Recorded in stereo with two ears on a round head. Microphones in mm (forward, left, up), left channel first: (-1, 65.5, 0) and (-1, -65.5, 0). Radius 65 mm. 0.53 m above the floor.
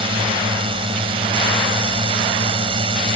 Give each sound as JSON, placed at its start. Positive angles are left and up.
{"t": 0.0, "sound": "a drone", "side_deg": -40}